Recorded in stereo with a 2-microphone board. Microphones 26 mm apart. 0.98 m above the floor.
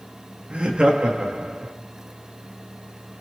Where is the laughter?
55° right (ahead or behind), 2.0 m.